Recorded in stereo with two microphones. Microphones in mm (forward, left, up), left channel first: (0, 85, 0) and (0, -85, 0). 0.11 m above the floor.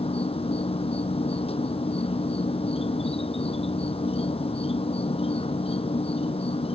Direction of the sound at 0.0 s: 35° left (ahead or behind).